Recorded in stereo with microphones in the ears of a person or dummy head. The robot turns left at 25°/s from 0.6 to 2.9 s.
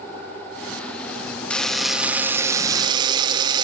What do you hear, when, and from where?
1.5 s a buzzer: 5° left, 1.8 m; by 3.6 s 30° right, 1.8 m